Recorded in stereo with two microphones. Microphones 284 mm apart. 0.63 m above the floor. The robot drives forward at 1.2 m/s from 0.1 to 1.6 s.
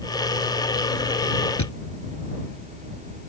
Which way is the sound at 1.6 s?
85° left.